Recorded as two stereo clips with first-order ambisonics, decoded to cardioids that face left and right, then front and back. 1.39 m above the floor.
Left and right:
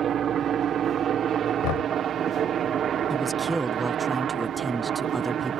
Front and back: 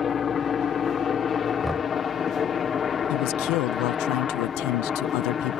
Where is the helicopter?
50° right.